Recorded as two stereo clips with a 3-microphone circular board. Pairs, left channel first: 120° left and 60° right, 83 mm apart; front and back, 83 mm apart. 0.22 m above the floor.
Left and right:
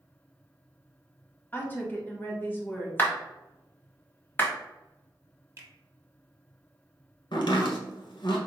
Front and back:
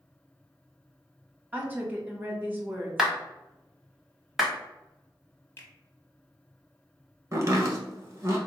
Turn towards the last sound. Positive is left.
turn(degrees=130)